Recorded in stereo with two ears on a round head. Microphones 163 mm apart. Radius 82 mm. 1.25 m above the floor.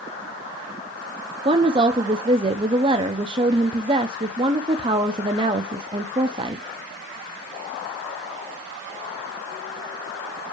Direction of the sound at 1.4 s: 25° right (ahead or behind).